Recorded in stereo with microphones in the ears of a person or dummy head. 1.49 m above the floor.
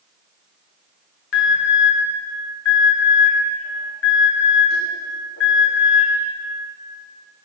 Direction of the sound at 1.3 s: 70° left (ahead or behind).